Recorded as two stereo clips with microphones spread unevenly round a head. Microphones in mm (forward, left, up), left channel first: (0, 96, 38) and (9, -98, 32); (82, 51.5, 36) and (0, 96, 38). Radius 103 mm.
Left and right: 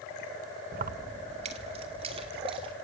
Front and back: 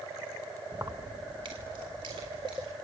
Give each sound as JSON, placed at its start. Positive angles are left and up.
{"t": 0.7, "sound": "keys jangling", "azimuth_deg": -130, "distance_m": 0.8}